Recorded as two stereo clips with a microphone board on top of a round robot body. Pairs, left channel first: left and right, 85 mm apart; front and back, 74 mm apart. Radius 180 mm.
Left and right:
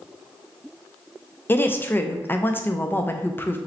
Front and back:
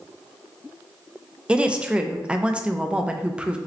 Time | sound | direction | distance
1.5 | a woman speaking | 120° left | 0.7 m